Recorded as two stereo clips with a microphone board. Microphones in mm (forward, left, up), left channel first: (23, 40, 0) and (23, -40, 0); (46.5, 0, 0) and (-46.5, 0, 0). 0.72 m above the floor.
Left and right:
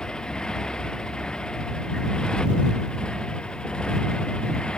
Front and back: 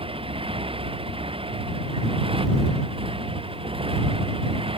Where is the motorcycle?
170° left; by 4.8 s 165° left.